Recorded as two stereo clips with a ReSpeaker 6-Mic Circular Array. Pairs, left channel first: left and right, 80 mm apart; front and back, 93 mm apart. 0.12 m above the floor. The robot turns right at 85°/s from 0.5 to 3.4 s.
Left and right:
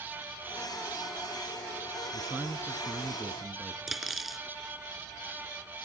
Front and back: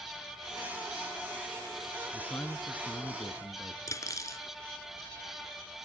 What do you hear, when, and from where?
2.1 s a man speaking: 80° right, 1.3 m; by 3.8 s 30° left, 1.3 m
3.9 s cutlery clinking: 5° right, 1.0 m